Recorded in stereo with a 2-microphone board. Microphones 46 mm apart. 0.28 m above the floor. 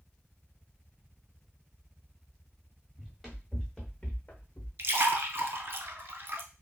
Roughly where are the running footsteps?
Centre.